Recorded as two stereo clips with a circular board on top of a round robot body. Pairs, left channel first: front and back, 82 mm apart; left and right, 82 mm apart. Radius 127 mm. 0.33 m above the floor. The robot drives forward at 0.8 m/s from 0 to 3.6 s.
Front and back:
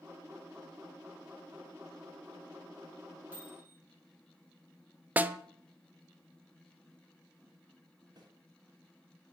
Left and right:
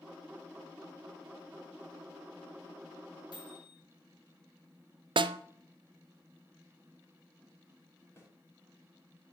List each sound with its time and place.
3.3 s a microwave: 115° left, 4 m
5.2 s a snare drum: 110° right, 0.6 m
8.2 s a snare drum: 150° left, 3.5 m